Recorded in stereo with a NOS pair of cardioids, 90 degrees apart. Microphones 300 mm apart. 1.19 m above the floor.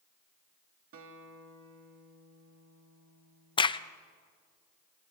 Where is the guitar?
50° right, 1.8 m.